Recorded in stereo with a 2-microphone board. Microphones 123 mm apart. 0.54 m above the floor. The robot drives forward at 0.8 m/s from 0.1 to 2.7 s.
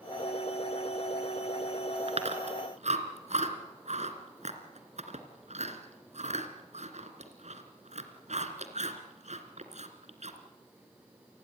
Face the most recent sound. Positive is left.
turn(degrees=-70)  # may be behind; listen again after turning